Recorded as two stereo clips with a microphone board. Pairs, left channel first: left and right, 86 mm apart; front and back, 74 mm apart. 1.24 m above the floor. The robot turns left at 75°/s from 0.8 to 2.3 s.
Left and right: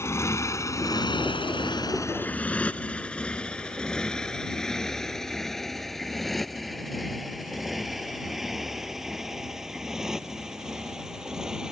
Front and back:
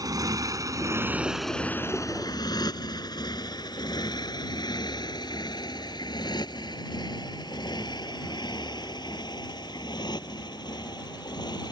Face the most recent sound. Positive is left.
turn(degrees=-5)